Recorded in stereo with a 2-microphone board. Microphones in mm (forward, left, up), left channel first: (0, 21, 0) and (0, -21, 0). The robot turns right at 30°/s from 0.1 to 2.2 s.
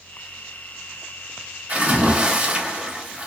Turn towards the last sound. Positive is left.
turn(degrees=-30)  # may be behind; listen again after turning